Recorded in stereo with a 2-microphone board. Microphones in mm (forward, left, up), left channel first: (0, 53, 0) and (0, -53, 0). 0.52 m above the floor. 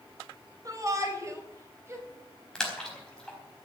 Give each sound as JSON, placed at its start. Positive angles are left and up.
{"t": 0.7, "sound": "a shout", "side_deg": -35, "distance_m": 3.0}
{"t": 2.5, "sound": "a splash", "side_deg": 10, "distance_m": 4.0}